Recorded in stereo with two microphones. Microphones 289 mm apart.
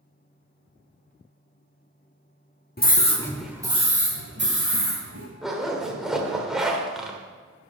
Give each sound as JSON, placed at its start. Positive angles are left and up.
{"t": 2.8, "sound": "a scream", "side_deg": 35, "distance_m": 0.9}
{"t": 5.4, "sound": "a zipper", "side_deg": 0, "distance_m": 1.3}